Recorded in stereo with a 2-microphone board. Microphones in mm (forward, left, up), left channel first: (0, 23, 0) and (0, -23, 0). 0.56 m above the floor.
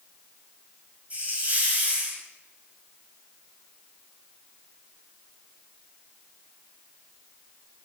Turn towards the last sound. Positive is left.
turn(degrees=-35)  # may be behind; listen again after turning